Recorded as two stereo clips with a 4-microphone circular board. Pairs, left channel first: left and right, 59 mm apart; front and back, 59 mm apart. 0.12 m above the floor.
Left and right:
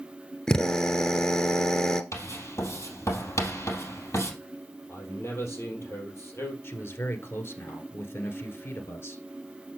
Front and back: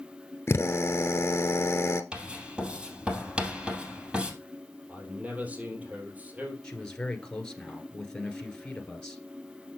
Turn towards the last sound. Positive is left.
turn(degrees=75)